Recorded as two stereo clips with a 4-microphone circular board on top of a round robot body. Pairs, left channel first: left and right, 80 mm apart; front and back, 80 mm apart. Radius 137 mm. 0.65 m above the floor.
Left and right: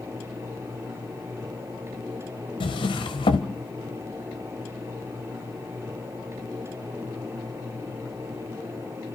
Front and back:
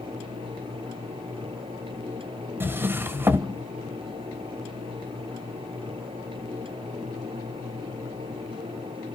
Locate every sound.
2.6 s a drawer: 120° left, 0.7 m